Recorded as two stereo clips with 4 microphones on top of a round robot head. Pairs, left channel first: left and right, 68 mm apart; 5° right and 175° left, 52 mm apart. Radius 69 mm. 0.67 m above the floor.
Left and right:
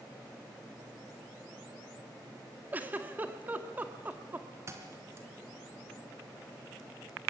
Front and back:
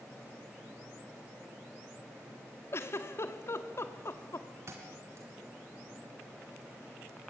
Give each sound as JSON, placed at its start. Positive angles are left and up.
{"t": 2.7, "sound": "a giggle", "azimuth_deg": -25, "distance_m": 1.9}
{"t": 4.7, "sound": "a thud", "azimuth_deg": -140, "distance_m": 3.5}